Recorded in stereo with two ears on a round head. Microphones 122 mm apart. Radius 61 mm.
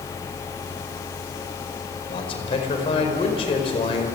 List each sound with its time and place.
2.1 s a man speaking: 45° left (ahead or behind), 4.5 m